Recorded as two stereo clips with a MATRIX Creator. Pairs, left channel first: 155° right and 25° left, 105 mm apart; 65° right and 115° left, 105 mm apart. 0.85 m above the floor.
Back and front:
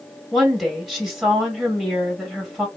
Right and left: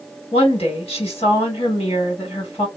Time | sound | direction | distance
0.3 | a woman speaking | 65° right | 2 m